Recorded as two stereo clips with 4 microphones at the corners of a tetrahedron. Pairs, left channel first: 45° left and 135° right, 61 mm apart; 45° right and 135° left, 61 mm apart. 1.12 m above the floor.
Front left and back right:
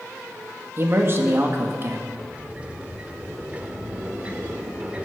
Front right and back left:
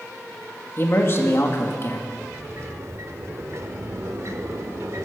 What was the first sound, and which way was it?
A man speaking, 90° right.